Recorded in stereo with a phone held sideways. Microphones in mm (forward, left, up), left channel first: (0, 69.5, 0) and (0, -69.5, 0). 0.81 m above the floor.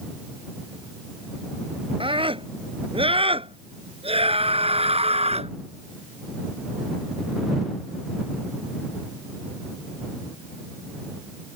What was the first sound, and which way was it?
A scream, 40° right (ahead or behind).